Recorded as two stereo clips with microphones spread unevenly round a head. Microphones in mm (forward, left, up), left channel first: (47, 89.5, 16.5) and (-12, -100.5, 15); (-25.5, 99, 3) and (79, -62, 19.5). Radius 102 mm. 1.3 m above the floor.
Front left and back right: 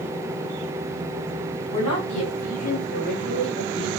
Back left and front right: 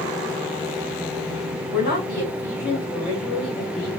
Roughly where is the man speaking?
Left.